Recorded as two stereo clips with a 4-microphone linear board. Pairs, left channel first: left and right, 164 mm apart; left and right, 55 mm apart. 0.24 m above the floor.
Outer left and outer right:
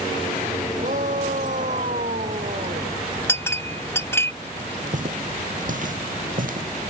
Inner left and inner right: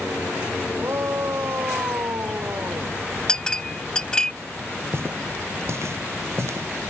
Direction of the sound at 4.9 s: 55° right (ahead or behind).